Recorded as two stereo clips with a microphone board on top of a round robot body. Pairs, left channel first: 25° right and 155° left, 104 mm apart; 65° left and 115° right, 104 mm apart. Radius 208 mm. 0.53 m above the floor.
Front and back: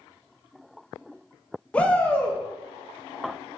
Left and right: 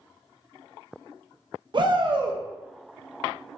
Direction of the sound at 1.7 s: 100° right.